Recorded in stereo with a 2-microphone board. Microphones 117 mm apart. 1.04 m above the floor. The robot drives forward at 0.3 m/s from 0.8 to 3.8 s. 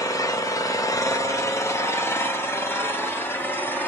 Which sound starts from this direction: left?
An engine running, at 0.0 s.